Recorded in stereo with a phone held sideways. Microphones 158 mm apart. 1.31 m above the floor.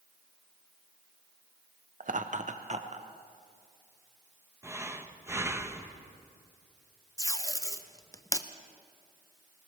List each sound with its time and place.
2.0 s laughter: 55° right (ahead or behind), 0.5 m; by 3.1 s 45° right (ahead or behind), 1.1 m
4.6 s breathing: 15° right (ahead or behind), 0.8 m
7.2 s tape being pulled: 20° left (ahead or behind), 0.6 m